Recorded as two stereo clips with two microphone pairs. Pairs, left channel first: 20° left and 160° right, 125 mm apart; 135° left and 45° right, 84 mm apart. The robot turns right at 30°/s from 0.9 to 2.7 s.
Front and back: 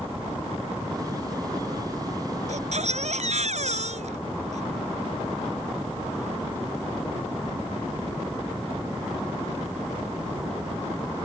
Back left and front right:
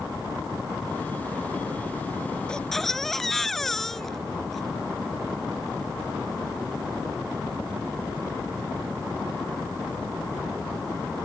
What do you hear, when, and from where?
2.5 s a baby crying: 145° right; by 4.6 s 140° right